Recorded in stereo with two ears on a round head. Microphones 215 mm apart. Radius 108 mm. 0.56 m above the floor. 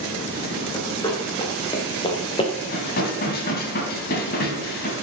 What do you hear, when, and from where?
0.7 s running footsteps: 15° left (ahead or behind), 4 m; by 2.5 s 25° left (ahead or behind), 2.5 m
2.7 s dishes clattering: 40° left (ahead or behind), 2.5 m